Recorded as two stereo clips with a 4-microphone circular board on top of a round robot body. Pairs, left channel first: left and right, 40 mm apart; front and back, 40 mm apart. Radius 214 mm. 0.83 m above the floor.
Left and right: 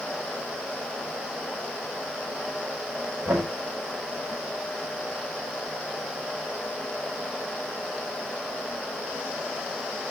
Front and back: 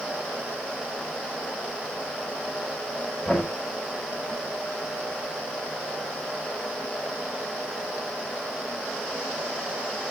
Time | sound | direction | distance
3.2 | knocking | 70° right | 5.5 m